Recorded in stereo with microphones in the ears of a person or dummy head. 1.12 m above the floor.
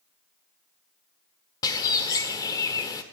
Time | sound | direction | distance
1.6 | a bird | 20° left (ahead or behind) | 1.4 m